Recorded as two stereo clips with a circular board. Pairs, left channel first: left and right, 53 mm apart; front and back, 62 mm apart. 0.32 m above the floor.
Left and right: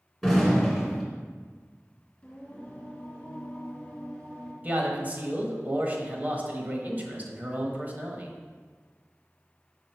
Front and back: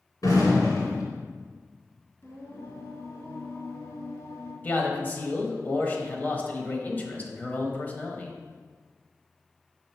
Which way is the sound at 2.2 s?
30° left.